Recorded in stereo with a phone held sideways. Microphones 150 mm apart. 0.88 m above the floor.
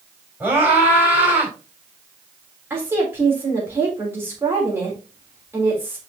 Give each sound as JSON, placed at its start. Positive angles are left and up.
{"t": 0.4, "sound": "a scream", "side_deg": -15, "distance_m": 4.5}
{"t": 2.7, "sound": "a woman speaking", "side_deg": -15, "distance_m": 3.5}